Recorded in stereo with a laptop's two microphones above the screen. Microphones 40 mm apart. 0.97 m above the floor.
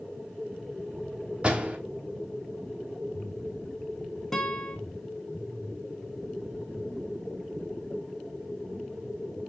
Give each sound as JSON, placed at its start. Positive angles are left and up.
{"t": 1.4, "sound": "a door slam", "side_deg": -30, "distance_m": 3.5}
{"t": 4.3, "sound": "a guitar", "side_deg": 15, "distance_m": 1.1}